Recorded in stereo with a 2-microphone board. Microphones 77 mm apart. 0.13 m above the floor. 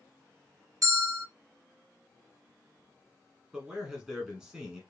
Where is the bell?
45° right (ahead or behind), 2.5 m.